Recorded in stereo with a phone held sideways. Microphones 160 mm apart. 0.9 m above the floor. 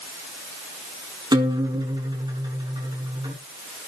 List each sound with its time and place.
1.3 s a guitar: 25° right (ahead or behind), 5.5 m